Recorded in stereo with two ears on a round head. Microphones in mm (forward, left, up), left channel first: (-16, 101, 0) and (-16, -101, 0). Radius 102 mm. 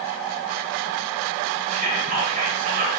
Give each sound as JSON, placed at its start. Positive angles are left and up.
{"t": 1.7, "sound": "whispering", "side_deg": -40, "distance_m": 2.0}